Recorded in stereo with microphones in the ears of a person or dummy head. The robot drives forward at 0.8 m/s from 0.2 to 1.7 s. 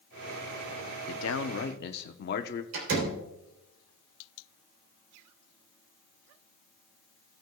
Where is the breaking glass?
I don't hear breaking glass.